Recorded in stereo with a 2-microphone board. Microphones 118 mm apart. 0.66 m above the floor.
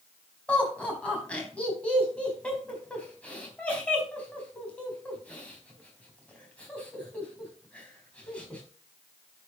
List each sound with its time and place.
0.5 s laughter: 10° left (ahead or behind), 4 m